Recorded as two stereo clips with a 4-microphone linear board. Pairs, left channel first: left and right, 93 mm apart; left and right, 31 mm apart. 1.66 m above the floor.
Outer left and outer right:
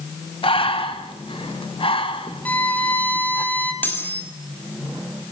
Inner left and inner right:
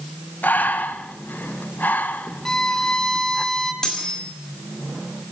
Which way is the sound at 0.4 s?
75° left (ahead or behind).